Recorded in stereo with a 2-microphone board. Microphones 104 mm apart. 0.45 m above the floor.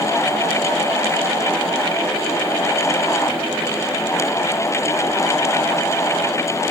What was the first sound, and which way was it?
Only background noise.